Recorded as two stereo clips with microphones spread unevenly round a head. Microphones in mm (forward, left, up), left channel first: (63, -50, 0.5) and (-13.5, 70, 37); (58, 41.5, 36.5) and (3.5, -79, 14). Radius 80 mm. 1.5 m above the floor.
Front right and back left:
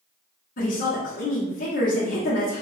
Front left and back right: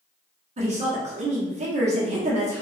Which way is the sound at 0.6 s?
85° right.